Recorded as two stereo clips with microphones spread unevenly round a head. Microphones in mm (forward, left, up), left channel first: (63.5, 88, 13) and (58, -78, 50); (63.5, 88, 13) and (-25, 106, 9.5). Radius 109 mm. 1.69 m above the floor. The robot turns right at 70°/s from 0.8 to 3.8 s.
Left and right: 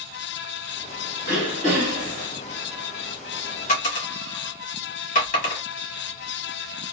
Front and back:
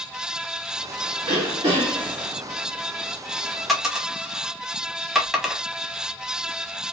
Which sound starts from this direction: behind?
Throat clearing, at 1.2 s.